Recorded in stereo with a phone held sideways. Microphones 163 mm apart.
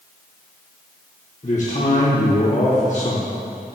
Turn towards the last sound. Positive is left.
turn(degrees=45)  # may be behind; listen again after turning